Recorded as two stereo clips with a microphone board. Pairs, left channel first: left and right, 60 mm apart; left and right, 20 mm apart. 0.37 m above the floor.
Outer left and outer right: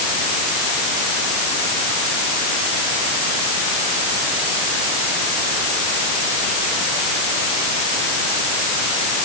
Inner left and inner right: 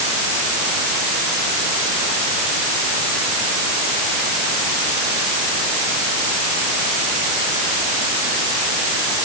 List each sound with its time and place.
Only background noise.